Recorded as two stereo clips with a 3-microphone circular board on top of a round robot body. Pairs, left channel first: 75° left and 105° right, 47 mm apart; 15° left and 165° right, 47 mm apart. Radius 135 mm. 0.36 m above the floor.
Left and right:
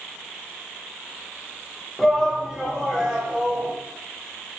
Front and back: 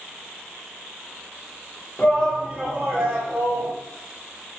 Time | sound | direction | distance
2.0 | a shout | 15° right | 1.1 m